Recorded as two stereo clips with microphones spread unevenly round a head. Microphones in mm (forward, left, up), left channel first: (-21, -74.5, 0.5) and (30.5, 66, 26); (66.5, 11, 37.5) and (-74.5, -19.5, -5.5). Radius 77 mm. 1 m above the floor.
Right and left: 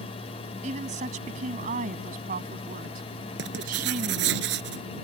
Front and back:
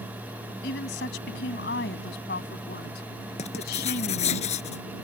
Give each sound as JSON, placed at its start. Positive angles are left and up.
{"t": 0.6, "sound": "a woman speaking", "azimuth_deg": 25}
{"t": 3.4, "sound": "writing", "azimuth_deg": 60}